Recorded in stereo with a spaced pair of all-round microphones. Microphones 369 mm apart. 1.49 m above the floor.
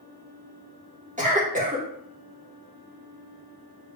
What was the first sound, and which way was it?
A cough, 20° right (ahead or behind).